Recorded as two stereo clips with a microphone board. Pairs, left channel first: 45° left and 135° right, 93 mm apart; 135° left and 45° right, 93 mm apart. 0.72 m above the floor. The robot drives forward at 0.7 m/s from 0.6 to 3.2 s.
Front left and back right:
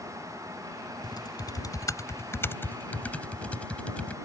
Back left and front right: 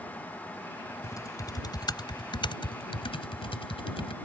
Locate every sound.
1.0 s typing on a keyboard: 80° left; by 4.1 s 120° left